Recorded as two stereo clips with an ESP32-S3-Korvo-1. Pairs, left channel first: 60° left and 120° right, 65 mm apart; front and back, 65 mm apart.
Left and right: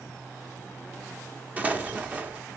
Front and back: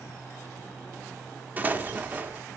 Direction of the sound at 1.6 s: 155° right.